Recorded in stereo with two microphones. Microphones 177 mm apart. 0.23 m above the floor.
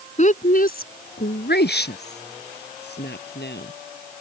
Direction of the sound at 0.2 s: 40° left (ahead or behind).